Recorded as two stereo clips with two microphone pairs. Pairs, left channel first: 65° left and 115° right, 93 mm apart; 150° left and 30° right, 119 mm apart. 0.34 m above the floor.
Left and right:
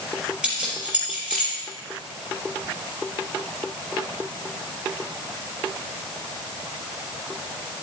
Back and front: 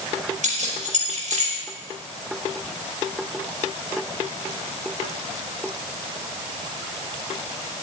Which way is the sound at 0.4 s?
35° right.